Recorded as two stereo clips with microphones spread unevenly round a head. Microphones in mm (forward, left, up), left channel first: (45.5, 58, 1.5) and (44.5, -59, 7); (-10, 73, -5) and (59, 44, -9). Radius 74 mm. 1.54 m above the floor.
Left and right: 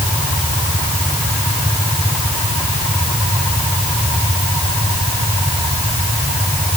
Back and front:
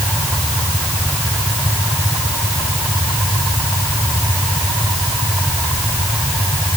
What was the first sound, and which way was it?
Only background noise.